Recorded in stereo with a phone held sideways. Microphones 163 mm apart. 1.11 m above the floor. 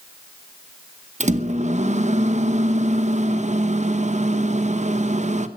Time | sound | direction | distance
1.2 | a microwave | 45° right (ahead or behind) | 0.9 m